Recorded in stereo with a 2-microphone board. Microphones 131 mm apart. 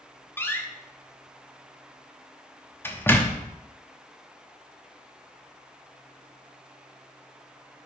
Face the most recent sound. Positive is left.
turn(degrees=15)  # may be behind; listen again after turning